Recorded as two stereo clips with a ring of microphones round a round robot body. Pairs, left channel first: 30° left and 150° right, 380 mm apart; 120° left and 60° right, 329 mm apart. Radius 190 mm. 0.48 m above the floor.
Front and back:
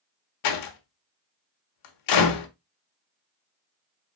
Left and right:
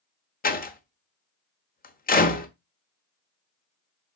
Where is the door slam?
60° left, 1.2 m.